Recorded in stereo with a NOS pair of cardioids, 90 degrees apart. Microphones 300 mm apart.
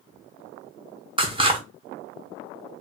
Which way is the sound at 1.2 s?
15° right.